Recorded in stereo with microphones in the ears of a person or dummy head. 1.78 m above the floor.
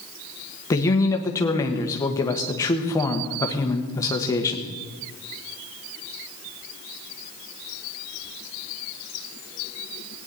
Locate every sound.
0.7 s a man speaking: 20° left (ahead or behind), 1.3 m